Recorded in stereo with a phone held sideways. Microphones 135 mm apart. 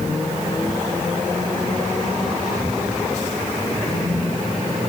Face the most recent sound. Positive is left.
No sound to turn to.